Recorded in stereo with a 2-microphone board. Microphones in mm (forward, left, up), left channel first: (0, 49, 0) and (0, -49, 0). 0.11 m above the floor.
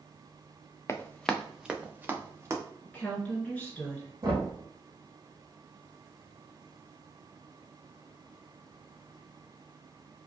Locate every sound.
0.9 s running footsteps: 30° left (ahead or behind), 0.6 m; by 2.6 s 30° right (ahead or behind), 1.5 m
2.9 s a woman speaking: 15° left (ahead or behind), 1.4 m
4.2 s knocking: 40° right (ahead or behind), 2.5 m